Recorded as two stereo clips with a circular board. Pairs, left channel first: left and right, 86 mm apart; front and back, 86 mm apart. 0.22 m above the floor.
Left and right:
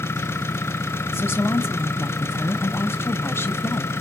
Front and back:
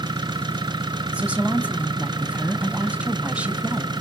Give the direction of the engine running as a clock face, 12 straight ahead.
7 o'clock.